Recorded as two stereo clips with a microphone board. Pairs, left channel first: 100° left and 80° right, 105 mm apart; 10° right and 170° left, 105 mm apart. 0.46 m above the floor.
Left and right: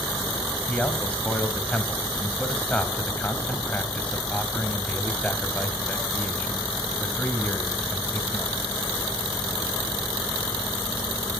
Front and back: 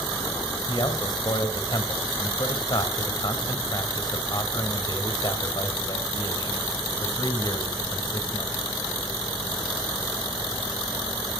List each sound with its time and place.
0.7 s a man speaking: 25° left, 2.5 m